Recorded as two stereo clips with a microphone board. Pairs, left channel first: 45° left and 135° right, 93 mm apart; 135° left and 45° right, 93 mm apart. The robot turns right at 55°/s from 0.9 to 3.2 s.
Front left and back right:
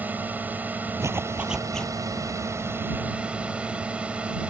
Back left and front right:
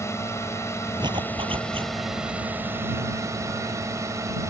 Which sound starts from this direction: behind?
A drone, at 0.0 s.